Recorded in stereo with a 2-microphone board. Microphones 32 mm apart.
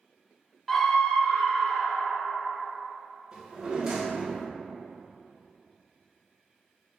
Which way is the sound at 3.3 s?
25° right (ahead or behind).